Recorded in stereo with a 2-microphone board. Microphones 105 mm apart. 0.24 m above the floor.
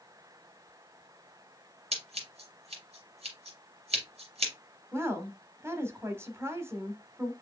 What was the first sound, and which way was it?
Scissors, 75° right (ahead or behind).